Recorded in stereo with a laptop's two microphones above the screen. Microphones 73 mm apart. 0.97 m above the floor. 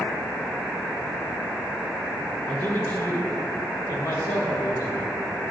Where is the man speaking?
30° left (ahead or behind), 1.2 m; by 5.1 s 65° left (ahead or behind), 2 m.